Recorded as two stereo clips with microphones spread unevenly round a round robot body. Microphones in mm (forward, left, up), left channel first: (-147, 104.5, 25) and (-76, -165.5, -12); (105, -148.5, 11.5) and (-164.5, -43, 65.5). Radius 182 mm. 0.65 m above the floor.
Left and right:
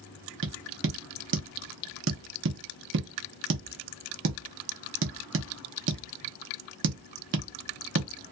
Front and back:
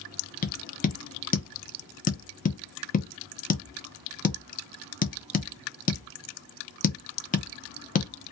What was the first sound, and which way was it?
Tapping, 65° right.